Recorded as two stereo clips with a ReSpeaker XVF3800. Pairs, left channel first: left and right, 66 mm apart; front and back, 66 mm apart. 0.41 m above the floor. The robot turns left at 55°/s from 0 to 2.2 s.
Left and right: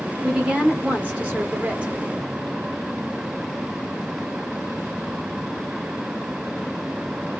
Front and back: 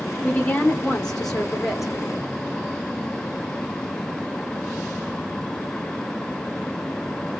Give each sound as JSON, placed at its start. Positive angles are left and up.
{"t": 0.2, "sound": "a woman speaking", "azimuth_deg": -10, "distance_m": 0.9}